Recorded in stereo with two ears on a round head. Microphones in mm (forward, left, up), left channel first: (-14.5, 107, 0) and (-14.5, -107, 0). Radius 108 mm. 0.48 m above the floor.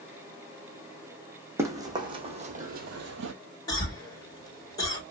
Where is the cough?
15° left (ahead or behind), 1.7 m.